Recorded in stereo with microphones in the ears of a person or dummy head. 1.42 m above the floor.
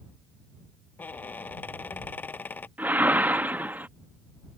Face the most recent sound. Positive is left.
turn(degrees=-10)  # may be behind; listen again after turning